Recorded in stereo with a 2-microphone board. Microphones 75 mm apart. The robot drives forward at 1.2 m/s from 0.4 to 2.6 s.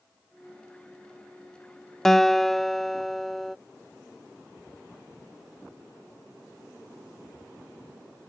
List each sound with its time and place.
2.0 s a guitar: 5° left (ahead or behind)